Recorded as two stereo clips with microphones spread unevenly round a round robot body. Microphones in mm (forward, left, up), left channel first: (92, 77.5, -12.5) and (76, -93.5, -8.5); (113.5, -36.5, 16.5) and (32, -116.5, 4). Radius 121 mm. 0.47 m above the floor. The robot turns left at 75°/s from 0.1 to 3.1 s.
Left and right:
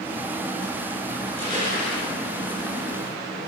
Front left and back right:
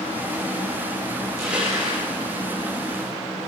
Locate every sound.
1.2 s crushing: straight behind, 9.5 m; by 2.1 s 120° left, 9.5 m